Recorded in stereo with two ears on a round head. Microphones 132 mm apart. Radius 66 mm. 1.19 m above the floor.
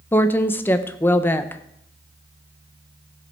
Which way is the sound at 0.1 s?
15° left (ahead or behind).